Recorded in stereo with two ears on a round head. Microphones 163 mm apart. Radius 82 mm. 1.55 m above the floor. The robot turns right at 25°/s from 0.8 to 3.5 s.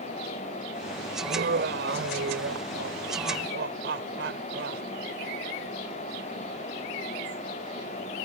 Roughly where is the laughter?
Behind right.